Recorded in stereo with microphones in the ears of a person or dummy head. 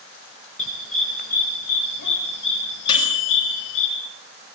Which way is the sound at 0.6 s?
40° left (ahead or behind).